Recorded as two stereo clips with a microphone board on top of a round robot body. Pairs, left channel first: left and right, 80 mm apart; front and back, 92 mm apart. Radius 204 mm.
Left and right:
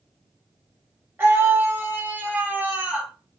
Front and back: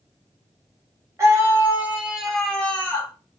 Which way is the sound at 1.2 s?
140° right.